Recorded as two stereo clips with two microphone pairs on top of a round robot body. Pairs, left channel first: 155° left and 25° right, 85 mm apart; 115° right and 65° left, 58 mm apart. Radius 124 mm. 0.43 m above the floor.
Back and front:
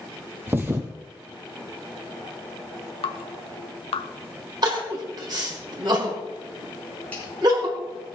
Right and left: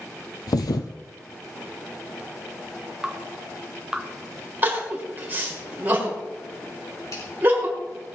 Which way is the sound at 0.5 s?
95° right.